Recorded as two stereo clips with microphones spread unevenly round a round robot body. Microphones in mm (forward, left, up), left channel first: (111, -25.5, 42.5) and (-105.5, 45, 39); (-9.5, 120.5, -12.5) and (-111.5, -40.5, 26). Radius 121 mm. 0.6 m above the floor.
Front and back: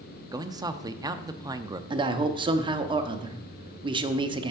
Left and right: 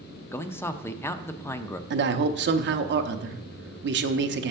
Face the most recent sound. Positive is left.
turn(degrees=-135)